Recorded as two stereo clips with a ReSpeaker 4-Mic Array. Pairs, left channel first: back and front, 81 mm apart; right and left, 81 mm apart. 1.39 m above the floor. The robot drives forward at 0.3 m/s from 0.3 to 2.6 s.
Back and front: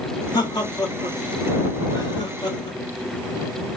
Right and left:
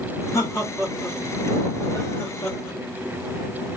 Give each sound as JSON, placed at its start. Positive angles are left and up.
{"t": 0.3, "sound": "laughter", "azimuth_deg": -145, "distance_m": 3.5}